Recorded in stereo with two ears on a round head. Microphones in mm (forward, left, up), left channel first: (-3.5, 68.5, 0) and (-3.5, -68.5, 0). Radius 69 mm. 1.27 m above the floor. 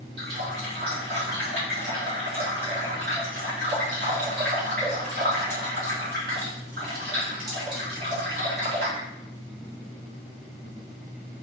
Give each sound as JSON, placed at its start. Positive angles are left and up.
{"t": 0.2, "sound": "a running tap", "side_deg": -70, "distance_m": 2.5}